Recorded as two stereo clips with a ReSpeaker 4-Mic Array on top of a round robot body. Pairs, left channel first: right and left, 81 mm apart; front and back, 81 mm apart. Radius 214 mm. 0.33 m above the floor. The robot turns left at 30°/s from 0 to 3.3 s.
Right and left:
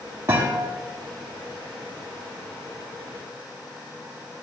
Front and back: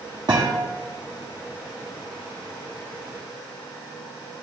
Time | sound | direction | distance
0.3 | a thud | 155° left | 2.5 m